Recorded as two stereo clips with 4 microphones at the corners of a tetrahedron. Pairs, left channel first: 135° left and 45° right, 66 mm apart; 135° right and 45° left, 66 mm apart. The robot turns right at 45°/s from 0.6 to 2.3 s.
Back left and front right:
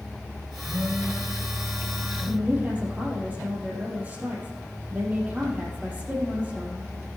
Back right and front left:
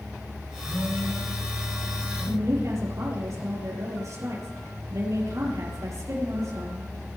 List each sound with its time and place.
0.6 s a phone buzzing: 80° right, 6 m; by 2.4 s 5° right, 6 m
2.3 s a woman speaking: 15° left, 5 m